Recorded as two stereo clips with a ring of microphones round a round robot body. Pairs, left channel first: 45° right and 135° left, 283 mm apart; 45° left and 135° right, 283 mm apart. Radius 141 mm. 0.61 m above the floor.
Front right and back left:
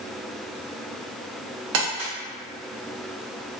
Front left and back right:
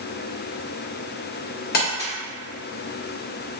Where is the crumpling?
100° left, 0.9 m.